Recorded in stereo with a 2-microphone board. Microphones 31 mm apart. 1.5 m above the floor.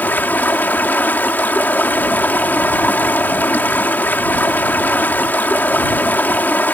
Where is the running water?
85° left.